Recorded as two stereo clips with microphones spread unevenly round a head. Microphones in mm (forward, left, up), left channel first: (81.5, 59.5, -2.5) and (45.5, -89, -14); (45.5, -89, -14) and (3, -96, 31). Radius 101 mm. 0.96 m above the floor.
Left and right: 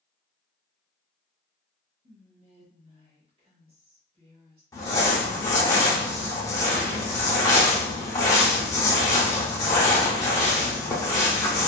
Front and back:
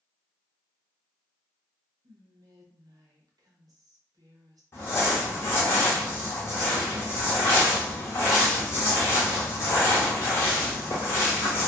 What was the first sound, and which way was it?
Whispering, 145° right.